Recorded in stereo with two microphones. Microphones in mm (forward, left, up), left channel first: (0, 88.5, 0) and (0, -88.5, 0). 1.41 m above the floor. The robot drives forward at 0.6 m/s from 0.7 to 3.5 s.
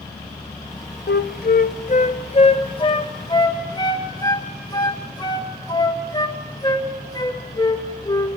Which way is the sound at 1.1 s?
75° left (ahead or behind).